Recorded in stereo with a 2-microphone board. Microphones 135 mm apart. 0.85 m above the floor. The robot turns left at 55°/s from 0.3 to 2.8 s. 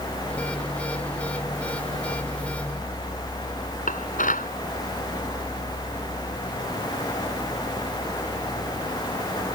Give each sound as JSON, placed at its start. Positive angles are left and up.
{"t": 3.9, "sound": "dishes clattering", "side_deg": 85}